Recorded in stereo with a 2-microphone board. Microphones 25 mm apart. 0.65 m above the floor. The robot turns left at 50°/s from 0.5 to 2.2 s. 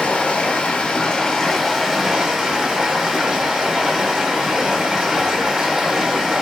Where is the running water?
65° left, 0.8 m; by 6.4 s 20° right, 0.8 m.